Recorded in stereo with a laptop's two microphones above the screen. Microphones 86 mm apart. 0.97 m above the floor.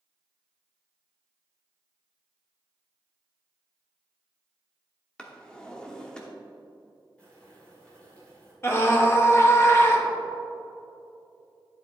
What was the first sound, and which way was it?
A drawer, 10° left (ahead or behind).